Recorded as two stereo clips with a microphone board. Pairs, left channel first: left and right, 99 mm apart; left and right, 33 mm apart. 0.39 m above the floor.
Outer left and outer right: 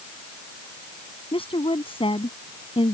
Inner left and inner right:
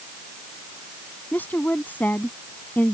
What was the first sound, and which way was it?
A woman speaking, 70° left (ahead or behind).